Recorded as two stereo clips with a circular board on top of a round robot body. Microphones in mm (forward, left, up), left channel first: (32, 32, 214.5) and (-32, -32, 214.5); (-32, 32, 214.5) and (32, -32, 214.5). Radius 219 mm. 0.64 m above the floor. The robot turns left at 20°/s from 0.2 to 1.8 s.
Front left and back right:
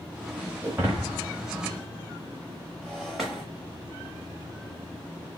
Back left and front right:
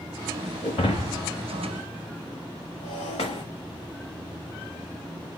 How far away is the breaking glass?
About 0.9 m.